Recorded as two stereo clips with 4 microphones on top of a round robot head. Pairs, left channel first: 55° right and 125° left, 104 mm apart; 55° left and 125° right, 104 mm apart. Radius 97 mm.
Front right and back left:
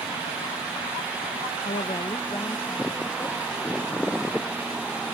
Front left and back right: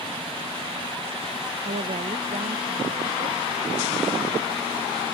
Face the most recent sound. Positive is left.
turn(degrees=-125)